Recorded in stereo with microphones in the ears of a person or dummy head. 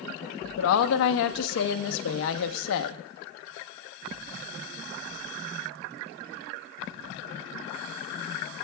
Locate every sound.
0.6 s a woman speaking: 75° left (ahead or behind), 0.9 m